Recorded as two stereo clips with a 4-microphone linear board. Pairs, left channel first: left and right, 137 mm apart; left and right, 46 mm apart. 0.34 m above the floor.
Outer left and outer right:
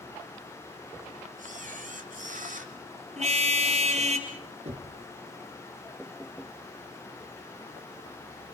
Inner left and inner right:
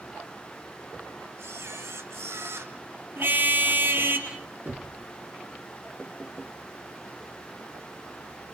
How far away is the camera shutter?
About 2 m.